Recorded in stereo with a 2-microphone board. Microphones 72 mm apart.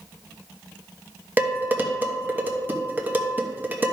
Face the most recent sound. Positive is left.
turn(degrees=-25)  # may be behind; listen again after turning